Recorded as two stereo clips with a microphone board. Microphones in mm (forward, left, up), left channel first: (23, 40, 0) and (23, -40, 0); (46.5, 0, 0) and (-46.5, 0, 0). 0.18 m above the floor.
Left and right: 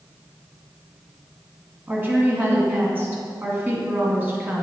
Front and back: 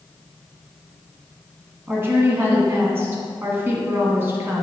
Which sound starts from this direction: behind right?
A woman speaking, at 1.9 s.